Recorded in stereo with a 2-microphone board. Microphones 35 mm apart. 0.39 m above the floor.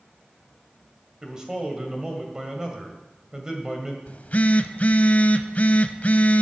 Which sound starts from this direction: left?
A phone buzzing, at 4.1 s.